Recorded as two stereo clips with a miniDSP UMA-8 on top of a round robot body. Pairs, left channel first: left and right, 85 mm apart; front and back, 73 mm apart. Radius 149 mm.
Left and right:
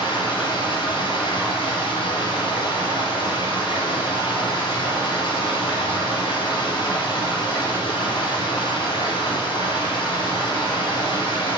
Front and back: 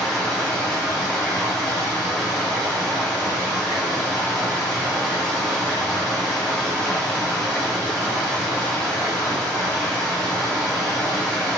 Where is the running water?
80° left, 2.5 m.